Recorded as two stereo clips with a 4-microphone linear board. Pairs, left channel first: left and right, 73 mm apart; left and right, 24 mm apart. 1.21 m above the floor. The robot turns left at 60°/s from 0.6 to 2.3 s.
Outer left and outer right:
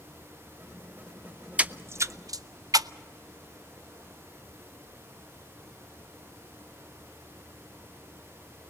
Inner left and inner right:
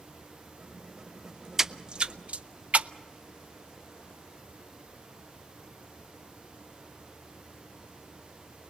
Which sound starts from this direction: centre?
A splash, at 1.6 s.